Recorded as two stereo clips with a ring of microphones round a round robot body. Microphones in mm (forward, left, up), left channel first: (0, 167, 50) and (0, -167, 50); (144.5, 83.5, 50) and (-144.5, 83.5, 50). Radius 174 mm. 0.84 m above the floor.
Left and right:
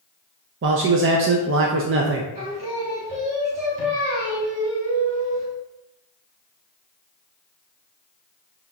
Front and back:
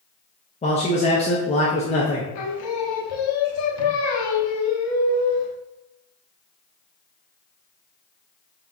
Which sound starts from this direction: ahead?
Singing, at 2.4 s.